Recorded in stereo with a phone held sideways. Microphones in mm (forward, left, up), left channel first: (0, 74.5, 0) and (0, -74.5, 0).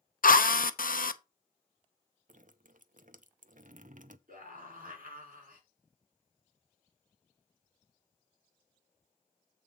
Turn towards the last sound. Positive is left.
turn(degrees=-75)  # may be behind; listen again after turning